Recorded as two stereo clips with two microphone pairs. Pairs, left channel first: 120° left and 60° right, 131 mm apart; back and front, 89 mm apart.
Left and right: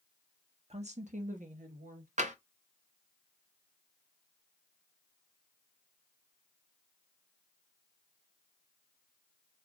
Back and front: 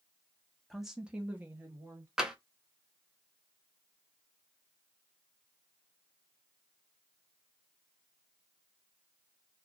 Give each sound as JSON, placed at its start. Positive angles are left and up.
{"t": 0.7, "sound": "a woman speaking", "azimuth_deg": -90, "distance_m": 0.8}
{"t": 2.2, "sound": "tapping", "azimuth_deg": -80, "distance_m": 0.8}